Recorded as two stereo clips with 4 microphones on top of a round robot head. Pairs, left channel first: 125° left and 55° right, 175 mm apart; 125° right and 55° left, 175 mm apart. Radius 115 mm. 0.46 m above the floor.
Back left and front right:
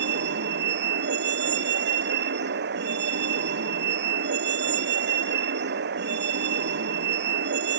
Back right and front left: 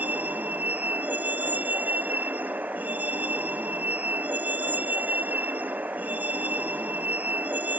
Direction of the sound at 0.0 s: 30° right.